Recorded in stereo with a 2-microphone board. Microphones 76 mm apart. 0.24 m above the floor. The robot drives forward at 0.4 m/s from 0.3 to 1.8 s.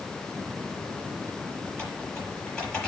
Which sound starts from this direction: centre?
Typing on a keyboard, at 1.7 s.